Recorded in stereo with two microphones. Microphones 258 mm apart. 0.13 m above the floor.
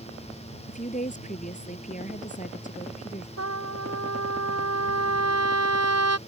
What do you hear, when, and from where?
0.7 s a woman speaking: 30° left (ahead or behind)
3.4 s a trumpet: 75° right (ahead or behind)